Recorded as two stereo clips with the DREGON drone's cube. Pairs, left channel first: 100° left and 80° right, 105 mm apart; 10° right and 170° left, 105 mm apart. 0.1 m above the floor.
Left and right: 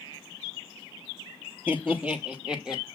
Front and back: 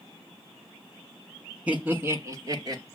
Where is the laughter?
130° right, 1.5 m; by 2.8 s 160° right, 1.9 m.